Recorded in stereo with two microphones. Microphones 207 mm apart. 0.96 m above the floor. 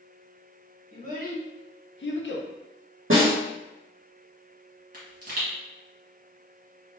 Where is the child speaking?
40° left (ahead or behind), 1.1 m; by 2.5 s 60° left (ahead or behind), 0.6 m.